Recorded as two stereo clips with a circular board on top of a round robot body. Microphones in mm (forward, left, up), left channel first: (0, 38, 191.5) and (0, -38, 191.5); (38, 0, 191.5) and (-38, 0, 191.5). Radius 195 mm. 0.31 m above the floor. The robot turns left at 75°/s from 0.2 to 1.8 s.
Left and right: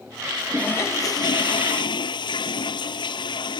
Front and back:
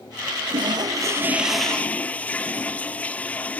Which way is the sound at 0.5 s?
170° left.